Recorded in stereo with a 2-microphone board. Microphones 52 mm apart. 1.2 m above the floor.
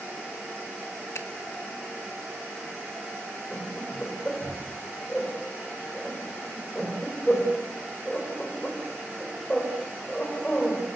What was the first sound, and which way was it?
A finger snap, 65° left (ahead or behind).